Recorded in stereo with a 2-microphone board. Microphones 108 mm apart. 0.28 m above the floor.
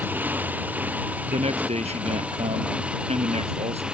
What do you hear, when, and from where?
0.0 s a motorcycle: 15° right (ahead or behind); by 3.9 s 10° right (ahead or behind)
1.3 s a man speaking: 75° right (ahead or behind)